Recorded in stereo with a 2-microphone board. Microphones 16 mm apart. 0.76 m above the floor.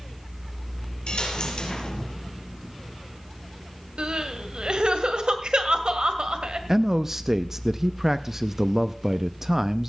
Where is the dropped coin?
60° left (ahead or behind), 4 m.